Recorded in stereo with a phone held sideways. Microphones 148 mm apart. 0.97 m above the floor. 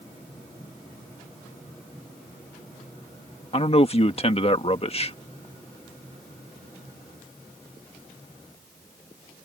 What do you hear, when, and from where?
3.5 s a man speaking: 40° left (ahead or behind)